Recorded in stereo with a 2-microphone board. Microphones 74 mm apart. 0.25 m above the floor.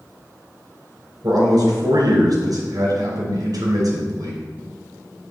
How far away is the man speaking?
About 2.5 m.